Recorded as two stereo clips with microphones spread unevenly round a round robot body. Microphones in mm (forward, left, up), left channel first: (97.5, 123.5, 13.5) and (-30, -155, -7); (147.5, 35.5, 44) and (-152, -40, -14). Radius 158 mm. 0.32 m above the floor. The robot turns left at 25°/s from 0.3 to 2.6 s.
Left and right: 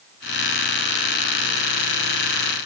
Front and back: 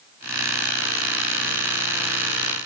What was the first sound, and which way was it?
Only background noise.